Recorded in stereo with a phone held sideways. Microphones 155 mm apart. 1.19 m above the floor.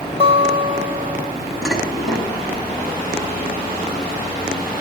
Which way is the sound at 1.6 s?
Centre (ahead or behind).